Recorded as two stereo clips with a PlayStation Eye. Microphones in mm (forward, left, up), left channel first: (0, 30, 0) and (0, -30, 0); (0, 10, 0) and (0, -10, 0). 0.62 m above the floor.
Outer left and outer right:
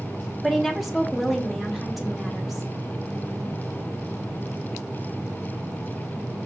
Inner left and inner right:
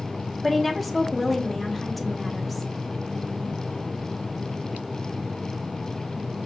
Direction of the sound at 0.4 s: Centre (ahead or behind).